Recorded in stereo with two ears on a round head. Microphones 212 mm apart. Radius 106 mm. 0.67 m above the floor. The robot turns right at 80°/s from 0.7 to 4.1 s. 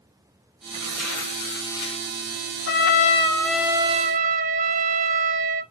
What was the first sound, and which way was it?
Tearing paper, 25° right.